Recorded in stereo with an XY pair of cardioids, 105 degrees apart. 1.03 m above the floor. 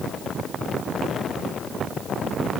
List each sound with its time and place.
Only background noise.